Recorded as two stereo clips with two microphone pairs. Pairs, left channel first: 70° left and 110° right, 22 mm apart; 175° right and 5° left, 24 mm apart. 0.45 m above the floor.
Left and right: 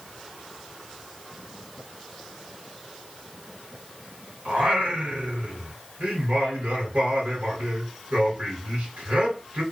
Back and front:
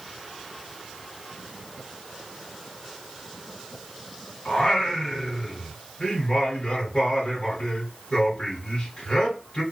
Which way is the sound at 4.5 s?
125° right.